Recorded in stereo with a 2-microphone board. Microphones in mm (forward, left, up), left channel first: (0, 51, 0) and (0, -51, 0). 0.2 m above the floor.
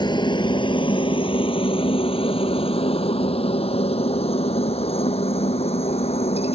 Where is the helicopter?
45° left (ahead or behind); by 6.5 s 80° left.